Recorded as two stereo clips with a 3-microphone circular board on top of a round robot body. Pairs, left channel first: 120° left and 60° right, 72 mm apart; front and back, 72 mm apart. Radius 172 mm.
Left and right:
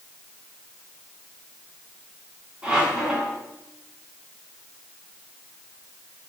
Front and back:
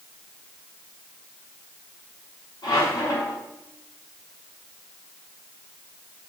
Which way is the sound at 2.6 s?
15° left.